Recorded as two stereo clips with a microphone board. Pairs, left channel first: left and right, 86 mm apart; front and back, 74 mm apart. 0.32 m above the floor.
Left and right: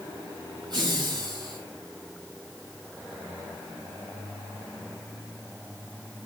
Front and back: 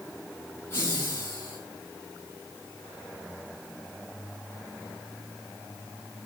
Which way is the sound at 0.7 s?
60° right.